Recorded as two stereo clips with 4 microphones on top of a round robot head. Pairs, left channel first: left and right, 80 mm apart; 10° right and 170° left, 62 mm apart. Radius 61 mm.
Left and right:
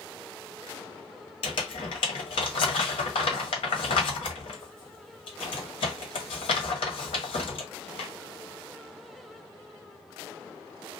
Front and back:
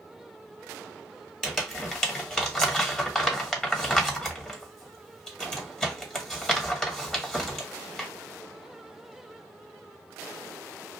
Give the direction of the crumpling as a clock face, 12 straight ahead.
10 o'clock.